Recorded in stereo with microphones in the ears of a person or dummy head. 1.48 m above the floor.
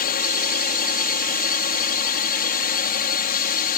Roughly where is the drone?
Left.